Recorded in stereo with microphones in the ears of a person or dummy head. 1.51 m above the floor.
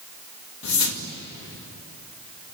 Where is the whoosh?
75° left (ahead or behind), 2 m.